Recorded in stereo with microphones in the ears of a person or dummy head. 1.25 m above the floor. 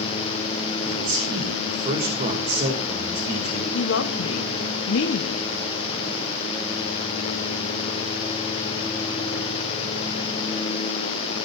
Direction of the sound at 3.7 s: 80° left.